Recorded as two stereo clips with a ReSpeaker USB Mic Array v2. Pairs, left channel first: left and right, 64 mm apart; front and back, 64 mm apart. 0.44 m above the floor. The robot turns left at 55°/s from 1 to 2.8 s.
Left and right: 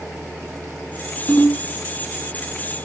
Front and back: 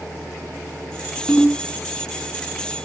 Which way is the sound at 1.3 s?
70° left.